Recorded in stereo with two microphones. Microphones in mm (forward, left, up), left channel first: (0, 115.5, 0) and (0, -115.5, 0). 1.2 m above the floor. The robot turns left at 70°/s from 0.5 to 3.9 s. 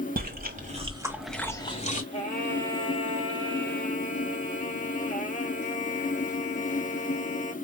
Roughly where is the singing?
Behind left.